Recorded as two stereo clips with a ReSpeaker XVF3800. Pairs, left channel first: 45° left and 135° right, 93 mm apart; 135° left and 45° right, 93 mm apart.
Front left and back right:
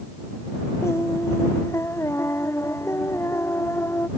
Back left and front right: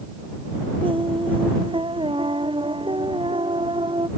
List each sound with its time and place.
0.8 s singing: 20° right